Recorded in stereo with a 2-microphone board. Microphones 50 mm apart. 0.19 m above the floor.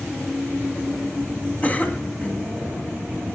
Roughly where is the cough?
Left.